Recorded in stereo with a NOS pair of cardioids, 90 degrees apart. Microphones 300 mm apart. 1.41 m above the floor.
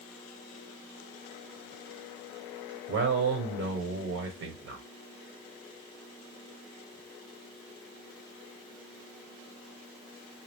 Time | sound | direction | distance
2.9 | a man speaking | 55° right | 1.1 m